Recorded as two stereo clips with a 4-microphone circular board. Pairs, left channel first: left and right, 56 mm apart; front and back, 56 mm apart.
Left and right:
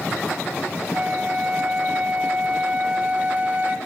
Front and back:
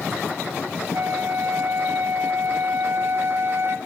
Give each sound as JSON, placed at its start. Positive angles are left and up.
{"t": 0.9, "sound": "a flute", "azimuth_deg": -150, "distance_m": 1.0}